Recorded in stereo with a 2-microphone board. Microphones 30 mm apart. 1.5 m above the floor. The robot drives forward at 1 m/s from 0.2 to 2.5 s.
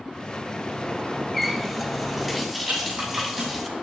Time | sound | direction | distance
1.3 | a running tap | centre (ahead or behind) | 0.7 m
2.7 | a rattle | 70° right (ahead or behind) | 8 m